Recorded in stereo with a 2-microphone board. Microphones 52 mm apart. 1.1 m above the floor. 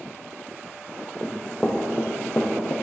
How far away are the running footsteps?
About 1.5 m.